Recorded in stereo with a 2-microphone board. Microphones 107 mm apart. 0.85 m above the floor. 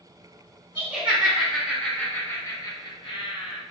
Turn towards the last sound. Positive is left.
turn(degrees=60)  # may be behind; listen again after turning